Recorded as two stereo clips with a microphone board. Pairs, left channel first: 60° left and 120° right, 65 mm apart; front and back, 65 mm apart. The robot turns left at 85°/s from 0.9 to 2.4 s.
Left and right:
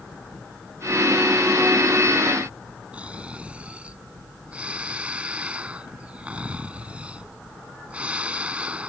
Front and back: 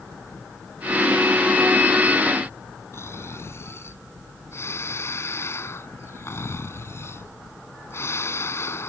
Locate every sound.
2.9 s snoring: 50° right